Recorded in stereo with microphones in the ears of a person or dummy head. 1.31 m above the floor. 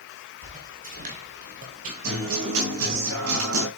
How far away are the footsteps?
About 2.5 m.